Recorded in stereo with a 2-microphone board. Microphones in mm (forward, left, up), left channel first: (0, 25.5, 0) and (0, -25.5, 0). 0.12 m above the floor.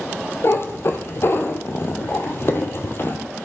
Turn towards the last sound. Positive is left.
turn(degrees=50)  # may be behind; listen again after turning